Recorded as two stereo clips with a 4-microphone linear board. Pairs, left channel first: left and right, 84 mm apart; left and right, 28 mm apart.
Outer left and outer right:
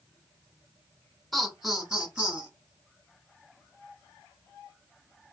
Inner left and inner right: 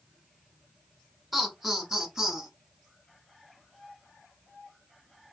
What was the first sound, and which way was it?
Laughter, centre (ahead or behind).